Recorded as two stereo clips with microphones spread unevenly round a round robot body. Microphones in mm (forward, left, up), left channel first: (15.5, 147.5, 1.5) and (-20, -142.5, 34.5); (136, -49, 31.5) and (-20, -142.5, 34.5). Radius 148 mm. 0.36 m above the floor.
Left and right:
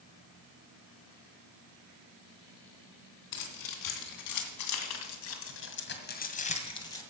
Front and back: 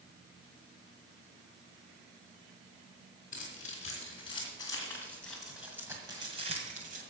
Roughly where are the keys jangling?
Left.